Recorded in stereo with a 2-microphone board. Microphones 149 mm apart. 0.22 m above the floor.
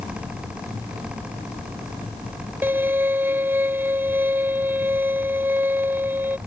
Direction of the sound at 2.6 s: 15° right (ahead or behind).